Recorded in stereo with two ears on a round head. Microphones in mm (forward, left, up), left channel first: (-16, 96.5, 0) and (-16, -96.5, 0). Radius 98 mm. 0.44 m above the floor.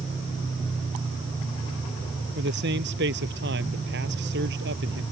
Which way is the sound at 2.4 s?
50° right (ahead or behind).